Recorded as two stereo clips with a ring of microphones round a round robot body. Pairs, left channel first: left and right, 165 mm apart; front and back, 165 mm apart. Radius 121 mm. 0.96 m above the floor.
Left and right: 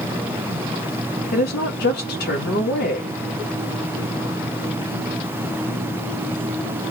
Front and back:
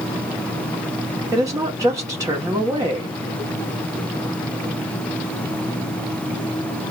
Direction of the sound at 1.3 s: 110° left.